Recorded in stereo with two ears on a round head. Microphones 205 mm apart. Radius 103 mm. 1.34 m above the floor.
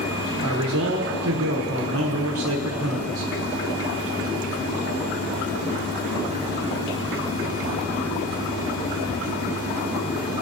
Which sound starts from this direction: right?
A man speaking, at 0.4 s.